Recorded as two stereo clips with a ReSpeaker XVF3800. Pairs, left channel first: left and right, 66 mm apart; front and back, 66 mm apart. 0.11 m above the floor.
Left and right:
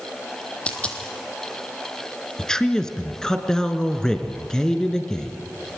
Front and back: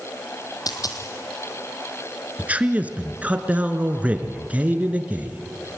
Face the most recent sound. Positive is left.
turn(degrees=155)